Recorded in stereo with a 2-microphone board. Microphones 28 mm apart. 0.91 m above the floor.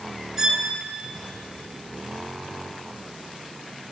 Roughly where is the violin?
Right.